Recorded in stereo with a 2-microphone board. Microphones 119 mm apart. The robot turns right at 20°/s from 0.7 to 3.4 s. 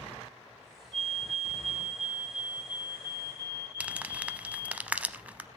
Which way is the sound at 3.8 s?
10° right (ahead or behind).